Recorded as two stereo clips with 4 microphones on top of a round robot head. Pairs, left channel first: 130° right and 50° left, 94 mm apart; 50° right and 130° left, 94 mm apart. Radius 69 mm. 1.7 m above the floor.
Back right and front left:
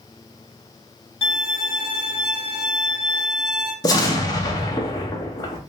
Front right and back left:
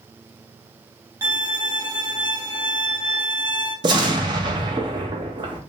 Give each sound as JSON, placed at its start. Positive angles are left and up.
{"t": 1.2, "sound": "a violin", "azimuth_deg": -165, "distance_m": 1.1}
{"t": 3.8, "sound": "an explosion", "azimuth_deg": 175, "distance_m": 0.6}